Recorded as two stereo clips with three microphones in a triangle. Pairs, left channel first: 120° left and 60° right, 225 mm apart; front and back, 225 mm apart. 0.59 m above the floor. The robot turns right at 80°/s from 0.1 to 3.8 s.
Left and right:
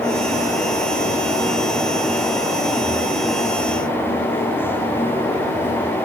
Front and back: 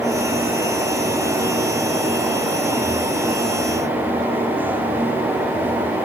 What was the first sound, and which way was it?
Only background noise.